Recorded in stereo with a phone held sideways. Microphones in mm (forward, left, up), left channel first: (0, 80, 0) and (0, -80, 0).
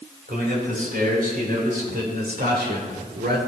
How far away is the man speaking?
About 3.5 m.